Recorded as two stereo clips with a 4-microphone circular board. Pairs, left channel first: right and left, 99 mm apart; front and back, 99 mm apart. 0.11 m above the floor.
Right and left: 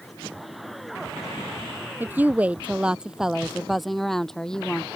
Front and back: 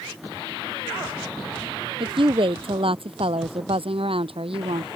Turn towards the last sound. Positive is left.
turn(degrees=-170)